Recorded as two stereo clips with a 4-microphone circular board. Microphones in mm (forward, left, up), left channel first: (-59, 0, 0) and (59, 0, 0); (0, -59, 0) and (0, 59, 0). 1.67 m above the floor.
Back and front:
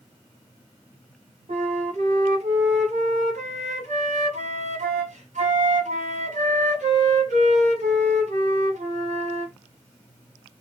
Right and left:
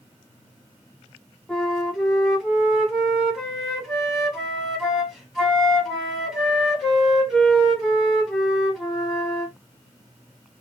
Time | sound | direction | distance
1.5 | a flute | straight ahead | 1.2 m